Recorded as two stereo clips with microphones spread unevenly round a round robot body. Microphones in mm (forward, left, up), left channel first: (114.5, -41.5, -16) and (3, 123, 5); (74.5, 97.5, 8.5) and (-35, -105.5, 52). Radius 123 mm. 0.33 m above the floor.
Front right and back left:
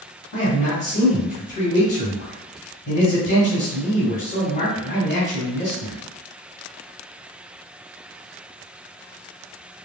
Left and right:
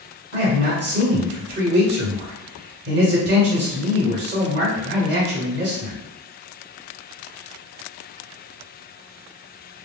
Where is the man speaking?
85° right, 1.7 m.